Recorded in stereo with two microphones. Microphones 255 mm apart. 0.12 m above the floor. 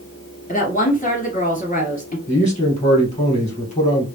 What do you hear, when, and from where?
0.5 s a woman speaking: 30° left (ahead or behind), 2 m
2.3 s a man speaking: 25° left (ahead or behind), 2.5 m